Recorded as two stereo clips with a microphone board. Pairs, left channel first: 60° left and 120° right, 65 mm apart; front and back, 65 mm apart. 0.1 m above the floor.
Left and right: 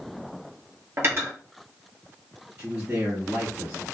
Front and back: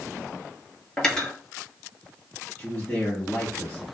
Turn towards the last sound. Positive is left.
turn(degrees=-60)